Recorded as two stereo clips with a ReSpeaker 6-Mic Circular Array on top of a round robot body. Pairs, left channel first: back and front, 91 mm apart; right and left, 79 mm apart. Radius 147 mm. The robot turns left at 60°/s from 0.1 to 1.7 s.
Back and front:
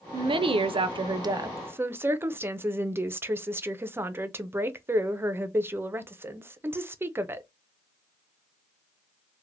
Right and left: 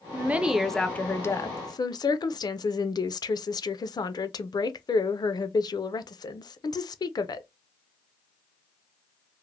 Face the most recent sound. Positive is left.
turn(degrees=-65)